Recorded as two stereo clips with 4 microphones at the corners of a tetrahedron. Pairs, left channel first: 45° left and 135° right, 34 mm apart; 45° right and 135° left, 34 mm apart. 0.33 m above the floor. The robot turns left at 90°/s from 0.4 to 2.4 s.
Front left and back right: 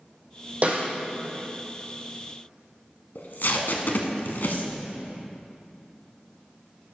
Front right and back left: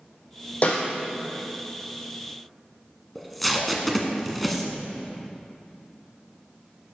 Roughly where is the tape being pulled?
Ahead left.